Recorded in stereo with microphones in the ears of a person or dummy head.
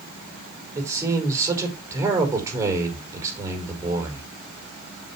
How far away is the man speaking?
About 5 m.